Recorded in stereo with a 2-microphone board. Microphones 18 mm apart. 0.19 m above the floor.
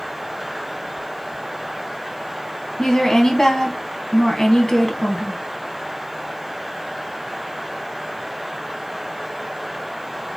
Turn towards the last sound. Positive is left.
turn(degrees=30)  # may be behind; listen again after turning